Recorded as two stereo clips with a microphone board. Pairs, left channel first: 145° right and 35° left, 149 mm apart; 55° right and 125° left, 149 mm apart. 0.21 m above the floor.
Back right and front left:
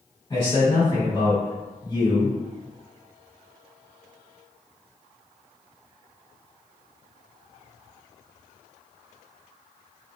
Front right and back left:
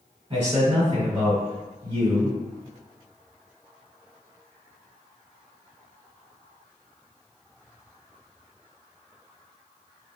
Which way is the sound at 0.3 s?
160° left.